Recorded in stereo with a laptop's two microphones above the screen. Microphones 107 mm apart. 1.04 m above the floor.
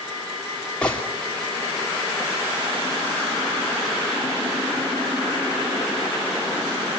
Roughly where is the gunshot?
Centre.